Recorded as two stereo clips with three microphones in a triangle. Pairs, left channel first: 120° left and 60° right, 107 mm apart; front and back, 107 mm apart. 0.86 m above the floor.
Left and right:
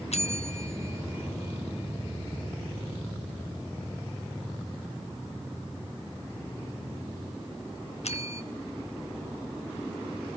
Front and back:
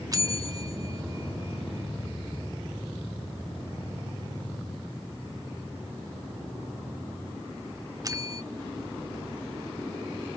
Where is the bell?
125° left, 1.2 m.